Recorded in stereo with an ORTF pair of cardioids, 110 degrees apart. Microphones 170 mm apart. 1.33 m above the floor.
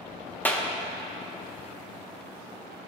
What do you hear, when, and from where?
0.5 s a clap: 10° left, 0.9 m